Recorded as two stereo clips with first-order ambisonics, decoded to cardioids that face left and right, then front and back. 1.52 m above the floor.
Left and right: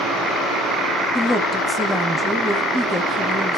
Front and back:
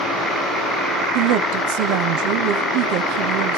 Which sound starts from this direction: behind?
A woman speaking, at 1.1 s.